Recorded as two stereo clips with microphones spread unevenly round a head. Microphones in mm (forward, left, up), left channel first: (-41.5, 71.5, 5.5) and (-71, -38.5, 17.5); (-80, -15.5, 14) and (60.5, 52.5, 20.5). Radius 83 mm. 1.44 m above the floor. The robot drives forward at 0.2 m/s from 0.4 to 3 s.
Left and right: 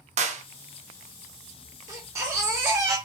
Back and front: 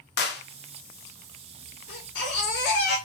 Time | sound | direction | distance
0.2 | a clap | 125° right | 1.0 m
1.9 | a baby crying | 165° right | 2.5 m